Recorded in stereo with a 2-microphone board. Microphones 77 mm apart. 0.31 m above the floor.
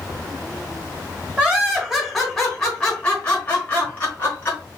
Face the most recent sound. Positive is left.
turn(degrees=30)  # may be behind; listen again after turning